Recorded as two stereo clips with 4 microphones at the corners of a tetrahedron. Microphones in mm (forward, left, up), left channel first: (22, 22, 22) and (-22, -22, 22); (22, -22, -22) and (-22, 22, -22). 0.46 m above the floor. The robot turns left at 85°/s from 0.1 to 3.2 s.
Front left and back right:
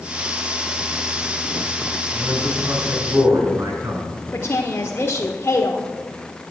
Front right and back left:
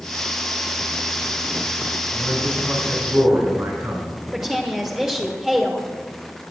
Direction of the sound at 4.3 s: 60° left.